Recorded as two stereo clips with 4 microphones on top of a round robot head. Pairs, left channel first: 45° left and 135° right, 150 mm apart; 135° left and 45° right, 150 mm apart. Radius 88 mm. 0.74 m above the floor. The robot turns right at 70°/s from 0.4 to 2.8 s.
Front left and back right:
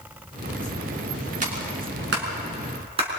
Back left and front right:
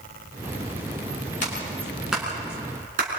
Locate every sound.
1.4 s a clap: straight behind, 6 m; by 3.1 s 85° right, 6 m